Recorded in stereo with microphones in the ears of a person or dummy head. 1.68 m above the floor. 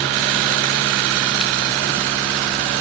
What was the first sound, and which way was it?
Only background noise.